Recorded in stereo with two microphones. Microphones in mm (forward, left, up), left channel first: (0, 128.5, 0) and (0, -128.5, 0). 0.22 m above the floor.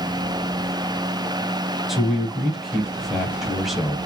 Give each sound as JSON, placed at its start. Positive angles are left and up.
{"t": 1.9, "sound": "a man speaking", "side_deg": 0, "distance_m": 1.0}